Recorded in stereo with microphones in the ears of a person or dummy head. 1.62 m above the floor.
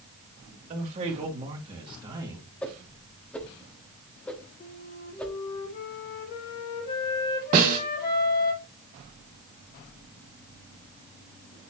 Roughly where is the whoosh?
Centre.